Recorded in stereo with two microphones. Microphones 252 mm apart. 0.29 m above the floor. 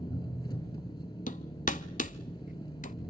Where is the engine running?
15° left (ahead or behind), 5.5 m.